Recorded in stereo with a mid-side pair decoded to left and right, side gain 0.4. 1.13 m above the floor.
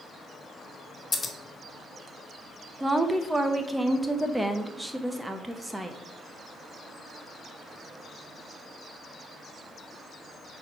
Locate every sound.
1.1 s scissors: 25° left, 1.4 m
2.8 s a woman speaking: 15° right, 1.0 m